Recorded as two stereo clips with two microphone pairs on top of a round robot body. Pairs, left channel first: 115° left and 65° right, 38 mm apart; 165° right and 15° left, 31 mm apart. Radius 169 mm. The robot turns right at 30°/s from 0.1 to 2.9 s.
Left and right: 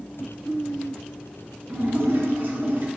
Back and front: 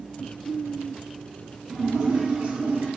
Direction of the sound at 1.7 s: 50° right.